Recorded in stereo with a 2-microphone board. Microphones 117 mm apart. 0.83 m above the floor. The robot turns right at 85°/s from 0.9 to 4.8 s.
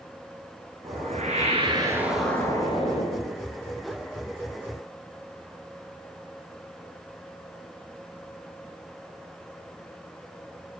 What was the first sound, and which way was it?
A whoosh, 110° right.